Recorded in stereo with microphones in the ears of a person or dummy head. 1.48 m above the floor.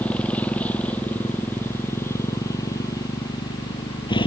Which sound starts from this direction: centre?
A motorcycle, at 0.0 s.